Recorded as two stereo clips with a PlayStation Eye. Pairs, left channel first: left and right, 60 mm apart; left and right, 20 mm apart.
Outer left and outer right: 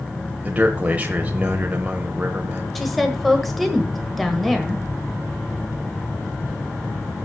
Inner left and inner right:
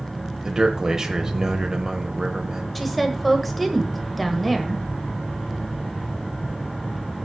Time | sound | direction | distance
0.4 | a man speaking | 25° right (ahead or behind) | 1.0 m
2.8 | a woman speaking | 5° left (ahead or behind) | 1.4 m